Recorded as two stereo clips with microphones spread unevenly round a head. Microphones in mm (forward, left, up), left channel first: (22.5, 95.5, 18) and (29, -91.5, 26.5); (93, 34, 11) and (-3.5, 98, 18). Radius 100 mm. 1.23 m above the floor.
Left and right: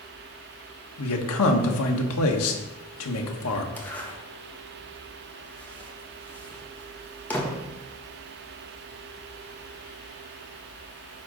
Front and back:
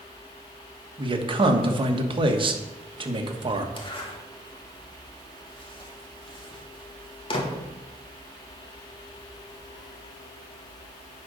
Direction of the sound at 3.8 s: 10° left.